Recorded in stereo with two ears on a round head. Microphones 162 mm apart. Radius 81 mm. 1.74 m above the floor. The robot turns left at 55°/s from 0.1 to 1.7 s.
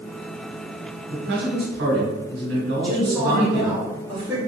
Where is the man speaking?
70° right, 1.4 m; by 3.8 s 105° right, 1.4 m.